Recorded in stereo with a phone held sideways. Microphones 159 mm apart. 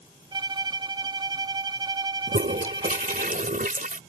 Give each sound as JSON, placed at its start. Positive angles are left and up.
{"t": 0.3, "sound": "a violin", "side_deg": -30}
{"t": 2.3, "sound": "a toilet flushing", "side_deg": -60}